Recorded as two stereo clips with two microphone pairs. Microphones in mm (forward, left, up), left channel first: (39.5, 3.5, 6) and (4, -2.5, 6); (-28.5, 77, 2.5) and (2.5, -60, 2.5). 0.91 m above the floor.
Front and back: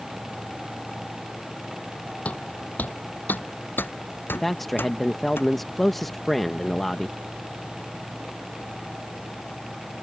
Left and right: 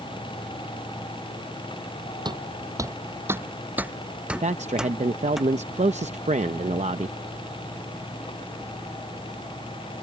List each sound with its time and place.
2.2 s footsteps: 30° right; by 5.4 s 10° left
4.4 s a man speaking: 70° right